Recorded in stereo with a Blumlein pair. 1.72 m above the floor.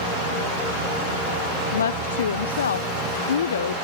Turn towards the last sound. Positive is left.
turn(degrees=65)